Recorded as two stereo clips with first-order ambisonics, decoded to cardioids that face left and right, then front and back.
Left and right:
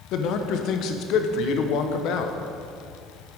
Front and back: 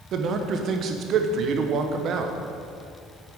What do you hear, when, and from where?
0.1 s a man speaking: 130° left, 0.8 m